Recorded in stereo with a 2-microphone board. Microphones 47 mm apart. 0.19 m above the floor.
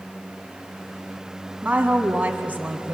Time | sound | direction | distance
1.6 | a woman speaking | 35° right (ahead or behind) | 1.4 m